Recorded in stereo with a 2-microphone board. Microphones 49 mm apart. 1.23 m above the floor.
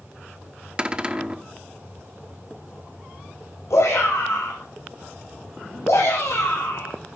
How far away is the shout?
About 6.5 m.